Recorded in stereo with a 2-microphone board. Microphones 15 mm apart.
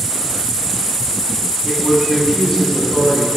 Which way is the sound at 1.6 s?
35° left (ahead or behind).